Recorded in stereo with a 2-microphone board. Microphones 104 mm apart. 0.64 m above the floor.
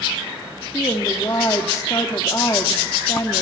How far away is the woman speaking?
About 1.4 m.